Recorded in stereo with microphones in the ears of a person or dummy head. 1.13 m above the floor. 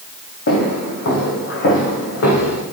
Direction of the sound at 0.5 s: 55° left (ahead or behind).